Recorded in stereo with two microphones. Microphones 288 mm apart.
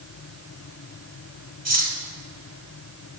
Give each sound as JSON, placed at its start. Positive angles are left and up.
{"t": 1.6, "sound": "cutlery clinking", "side_deg": -60, "distance_m": 1.6}